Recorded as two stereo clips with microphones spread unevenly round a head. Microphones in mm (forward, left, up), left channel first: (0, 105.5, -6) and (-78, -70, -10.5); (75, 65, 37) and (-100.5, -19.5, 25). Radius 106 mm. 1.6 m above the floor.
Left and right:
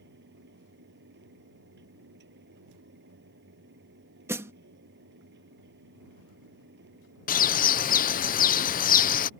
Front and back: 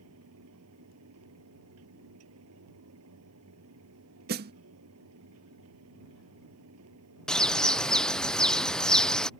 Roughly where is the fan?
Behind right.